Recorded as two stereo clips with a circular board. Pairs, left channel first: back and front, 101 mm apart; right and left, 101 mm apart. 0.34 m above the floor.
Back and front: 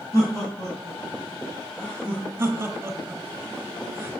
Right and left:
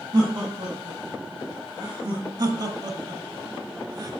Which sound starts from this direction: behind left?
Laughter, at 0.1 s.